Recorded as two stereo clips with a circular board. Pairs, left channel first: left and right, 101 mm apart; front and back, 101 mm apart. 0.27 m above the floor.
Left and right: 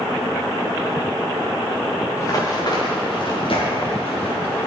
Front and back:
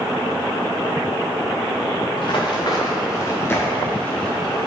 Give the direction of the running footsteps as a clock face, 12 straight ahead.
11 o'clock.